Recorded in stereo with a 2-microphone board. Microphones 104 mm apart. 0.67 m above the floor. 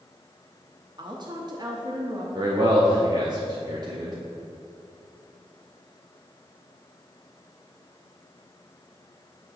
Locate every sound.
1.0 s a woman speaking: 40° right (ahead or behind), 0.8 m
2.4 s a man speaking: 35° right (ahead or behind), 0.8 m